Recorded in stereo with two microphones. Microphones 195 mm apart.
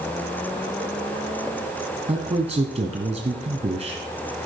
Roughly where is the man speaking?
Right.